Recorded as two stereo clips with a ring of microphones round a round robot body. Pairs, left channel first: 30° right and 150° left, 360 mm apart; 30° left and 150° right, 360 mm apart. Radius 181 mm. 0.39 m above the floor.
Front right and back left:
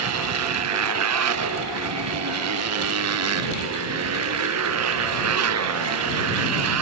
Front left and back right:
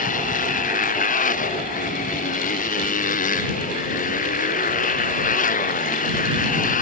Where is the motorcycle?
100° left.